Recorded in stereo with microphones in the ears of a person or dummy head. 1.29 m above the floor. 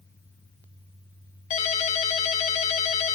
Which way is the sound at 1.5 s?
40° left (ahead or behind).